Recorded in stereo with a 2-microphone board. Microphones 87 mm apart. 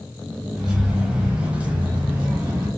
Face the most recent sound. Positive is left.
turn(degrees=-15)  # may be behind; listen again after turning